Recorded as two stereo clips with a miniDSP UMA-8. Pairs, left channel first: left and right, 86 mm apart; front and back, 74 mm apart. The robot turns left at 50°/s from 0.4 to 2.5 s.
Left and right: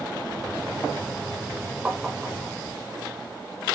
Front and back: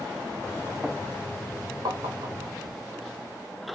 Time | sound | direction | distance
1.9 | tapping | 165° right | 1.6 m